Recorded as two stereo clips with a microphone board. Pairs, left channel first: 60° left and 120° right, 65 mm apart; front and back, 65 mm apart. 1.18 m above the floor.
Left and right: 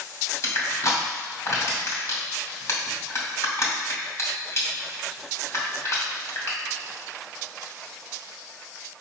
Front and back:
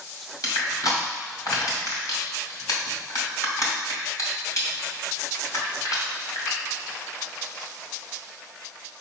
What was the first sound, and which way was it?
Crushing, 20° left.